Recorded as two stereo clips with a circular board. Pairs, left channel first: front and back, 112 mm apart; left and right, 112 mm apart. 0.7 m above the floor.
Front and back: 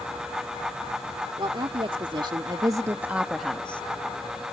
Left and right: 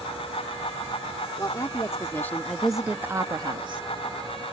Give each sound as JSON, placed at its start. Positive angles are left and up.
{"t": 1.4, "sound": "a woman speaking", "azimuth_deg": 145}